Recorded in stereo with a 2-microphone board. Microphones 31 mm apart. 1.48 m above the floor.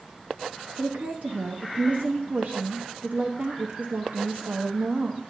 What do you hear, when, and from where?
0.8 s a woman speaking: 80° right, 0.8 m